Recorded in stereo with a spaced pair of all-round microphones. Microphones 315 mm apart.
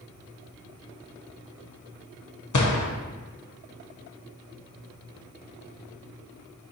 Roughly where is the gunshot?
Left.